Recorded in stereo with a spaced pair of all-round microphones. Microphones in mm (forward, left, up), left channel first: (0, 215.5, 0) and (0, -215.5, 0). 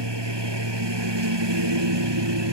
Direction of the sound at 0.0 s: 75° right (ahead or behind).